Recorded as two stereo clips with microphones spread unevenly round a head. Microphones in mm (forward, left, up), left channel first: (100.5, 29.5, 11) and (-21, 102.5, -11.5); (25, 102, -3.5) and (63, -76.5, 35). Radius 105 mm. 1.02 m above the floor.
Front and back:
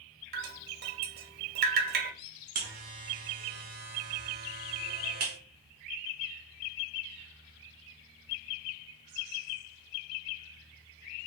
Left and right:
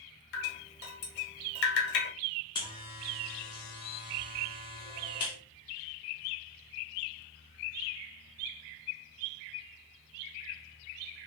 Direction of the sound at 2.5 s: 165° left.